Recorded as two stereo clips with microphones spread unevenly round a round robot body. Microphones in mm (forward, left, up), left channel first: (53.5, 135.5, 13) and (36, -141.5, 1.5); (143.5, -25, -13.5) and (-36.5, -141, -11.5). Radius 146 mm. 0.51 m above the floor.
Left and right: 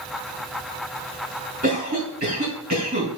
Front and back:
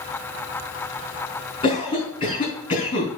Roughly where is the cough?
Ahead right.